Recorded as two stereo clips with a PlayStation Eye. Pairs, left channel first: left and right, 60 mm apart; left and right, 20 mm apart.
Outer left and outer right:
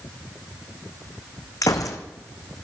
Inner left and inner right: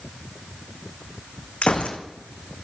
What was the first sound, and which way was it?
A gunshot, 70° left (ahead or behind).